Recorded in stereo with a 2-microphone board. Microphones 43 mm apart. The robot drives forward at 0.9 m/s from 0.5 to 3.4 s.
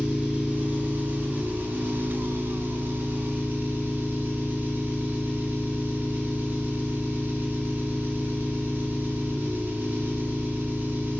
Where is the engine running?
35° right (ahead or behind), 2.5 m; by 11.2 s 45° right (ahead or behind), 1.8 m.